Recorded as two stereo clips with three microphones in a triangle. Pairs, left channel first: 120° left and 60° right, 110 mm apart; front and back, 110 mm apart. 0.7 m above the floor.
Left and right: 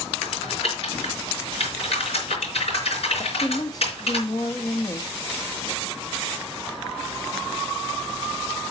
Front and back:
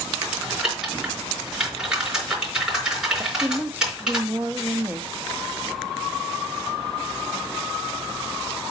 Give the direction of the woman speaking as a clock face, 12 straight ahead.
8 o'clock.